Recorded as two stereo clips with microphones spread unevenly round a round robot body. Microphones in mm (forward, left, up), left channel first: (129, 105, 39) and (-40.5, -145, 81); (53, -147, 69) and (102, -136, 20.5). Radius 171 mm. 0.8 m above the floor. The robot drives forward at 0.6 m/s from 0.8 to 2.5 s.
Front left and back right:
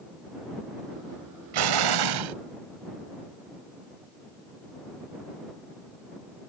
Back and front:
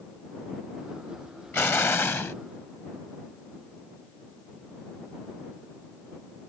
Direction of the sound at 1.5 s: 140° right.